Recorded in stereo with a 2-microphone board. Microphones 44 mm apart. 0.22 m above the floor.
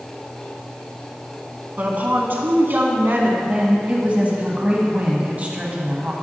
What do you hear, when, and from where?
1.8 s a woman speaking: 40° right (ahead or behind), 1.5 m; by 3.3 s 55° right (ahead or behind), 1.8 m
3.4 s a woman speaking: 35° right (ahead or behind), 1.5 m